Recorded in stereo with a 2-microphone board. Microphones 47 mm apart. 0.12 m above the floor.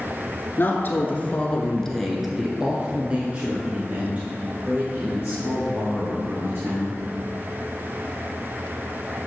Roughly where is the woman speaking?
Left.